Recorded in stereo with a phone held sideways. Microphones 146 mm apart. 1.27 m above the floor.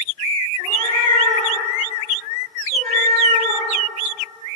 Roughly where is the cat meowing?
Right.